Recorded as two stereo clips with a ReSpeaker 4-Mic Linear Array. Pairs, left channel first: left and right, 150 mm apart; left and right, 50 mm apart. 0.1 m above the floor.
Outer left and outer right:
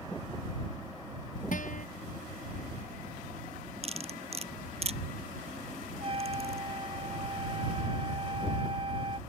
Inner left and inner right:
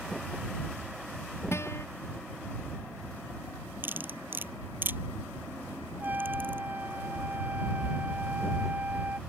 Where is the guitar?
60° left (ahead or behind).